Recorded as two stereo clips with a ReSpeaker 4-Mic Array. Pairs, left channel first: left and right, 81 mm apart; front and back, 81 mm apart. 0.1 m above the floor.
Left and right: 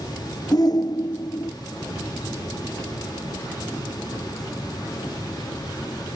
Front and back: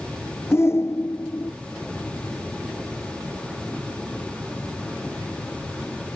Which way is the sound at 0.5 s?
60° left.